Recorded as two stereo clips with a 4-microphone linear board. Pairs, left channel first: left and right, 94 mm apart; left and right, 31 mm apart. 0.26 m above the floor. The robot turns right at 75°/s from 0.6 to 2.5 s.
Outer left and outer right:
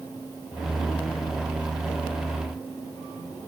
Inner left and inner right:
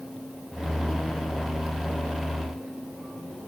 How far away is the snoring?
No snoring in this recording.